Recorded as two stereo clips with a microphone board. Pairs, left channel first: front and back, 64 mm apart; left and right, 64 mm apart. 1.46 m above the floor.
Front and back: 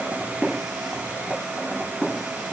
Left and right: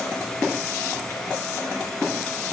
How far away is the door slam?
No door slam in this recording.